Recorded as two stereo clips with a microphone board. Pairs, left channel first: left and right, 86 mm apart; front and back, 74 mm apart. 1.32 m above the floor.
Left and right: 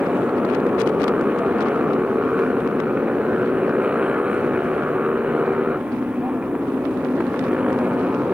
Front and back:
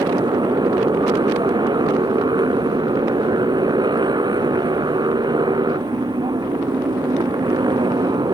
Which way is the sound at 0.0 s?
165° right.